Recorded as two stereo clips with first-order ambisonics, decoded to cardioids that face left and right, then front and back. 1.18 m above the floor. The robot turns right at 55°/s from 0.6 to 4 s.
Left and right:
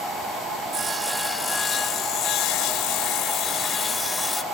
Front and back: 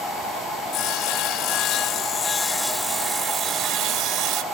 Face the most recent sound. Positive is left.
turn(degrees=160)